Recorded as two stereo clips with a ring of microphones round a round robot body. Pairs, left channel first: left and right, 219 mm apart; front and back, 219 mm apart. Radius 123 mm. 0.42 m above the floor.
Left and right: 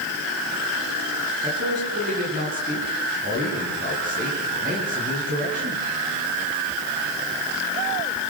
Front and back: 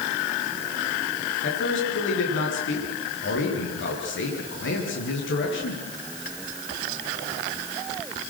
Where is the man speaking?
30° right, 9.5 m.